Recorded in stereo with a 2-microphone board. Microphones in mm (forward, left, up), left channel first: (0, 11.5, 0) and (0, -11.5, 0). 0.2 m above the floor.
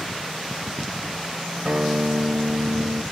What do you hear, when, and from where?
1.6 s a guitar: 55° right (ahead or behind), 1.1 m